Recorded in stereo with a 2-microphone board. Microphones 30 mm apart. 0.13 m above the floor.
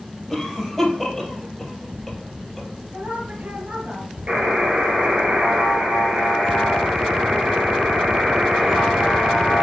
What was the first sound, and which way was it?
A cough, 5° left (ahead or behind).